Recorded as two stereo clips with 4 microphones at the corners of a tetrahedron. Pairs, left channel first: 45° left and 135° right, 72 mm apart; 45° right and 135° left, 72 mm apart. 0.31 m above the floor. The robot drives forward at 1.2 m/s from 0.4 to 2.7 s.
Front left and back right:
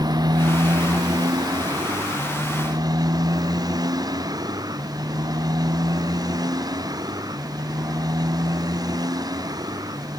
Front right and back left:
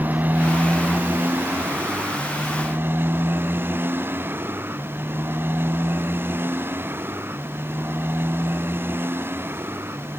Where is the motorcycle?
160° right; by 10.2 s 165° right.